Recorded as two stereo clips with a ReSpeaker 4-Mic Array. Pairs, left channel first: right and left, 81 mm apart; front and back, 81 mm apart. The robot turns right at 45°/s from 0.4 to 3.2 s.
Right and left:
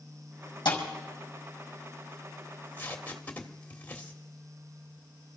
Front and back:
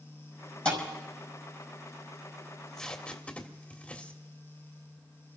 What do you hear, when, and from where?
0.7 s a thud: 75° right, 5.5 m; by 0.8 s 70° right, 5.5 m
2.5 s tape being pulled: 80° right, 1.5 m; by 4.2 s 50° right, 1.5 m